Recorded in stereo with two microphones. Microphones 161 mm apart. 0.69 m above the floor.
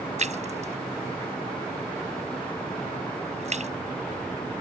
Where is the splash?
45° right (ahead or behind).